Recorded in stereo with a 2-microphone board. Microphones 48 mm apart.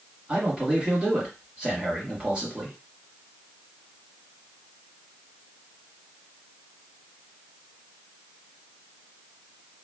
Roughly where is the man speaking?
Right.